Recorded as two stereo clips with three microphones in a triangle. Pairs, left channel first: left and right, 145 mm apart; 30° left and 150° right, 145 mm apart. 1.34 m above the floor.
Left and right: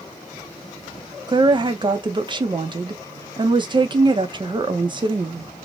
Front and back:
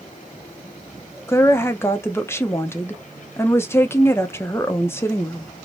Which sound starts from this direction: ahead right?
A woman speaking, at 1.3 s.